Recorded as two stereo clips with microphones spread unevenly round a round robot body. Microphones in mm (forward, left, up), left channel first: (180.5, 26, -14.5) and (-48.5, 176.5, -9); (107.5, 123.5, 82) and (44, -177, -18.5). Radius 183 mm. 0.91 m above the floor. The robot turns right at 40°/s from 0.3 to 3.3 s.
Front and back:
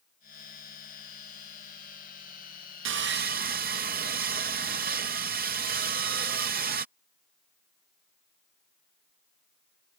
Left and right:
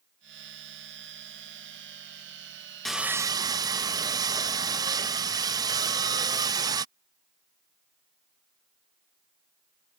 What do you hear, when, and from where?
2.9 s sawing: 175° right; by 6.8 s 160° right